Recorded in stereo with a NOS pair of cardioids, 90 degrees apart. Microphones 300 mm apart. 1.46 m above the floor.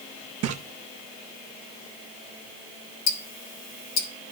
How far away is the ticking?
About 1.3 m.